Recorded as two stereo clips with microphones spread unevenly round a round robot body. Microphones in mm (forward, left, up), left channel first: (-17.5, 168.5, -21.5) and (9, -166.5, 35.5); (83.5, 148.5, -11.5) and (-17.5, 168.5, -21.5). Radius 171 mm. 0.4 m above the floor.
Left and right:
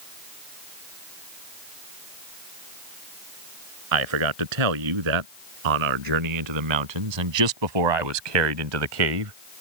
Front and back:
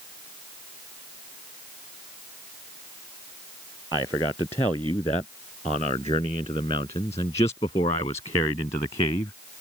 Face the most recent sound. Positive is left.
turn(degrees=-65)